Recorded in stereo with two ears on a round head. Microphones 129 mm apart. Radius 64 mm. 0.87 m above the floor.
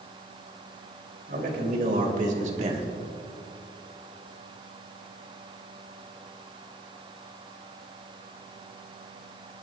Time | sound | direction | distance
1.3 | a man speaking | 65° right (ahead or behind) | 3.5 m